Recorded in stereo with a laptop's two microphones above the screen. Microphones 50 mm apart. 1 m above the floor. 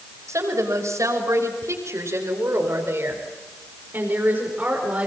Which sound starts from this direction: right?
A woman speaking, at 0.3 s.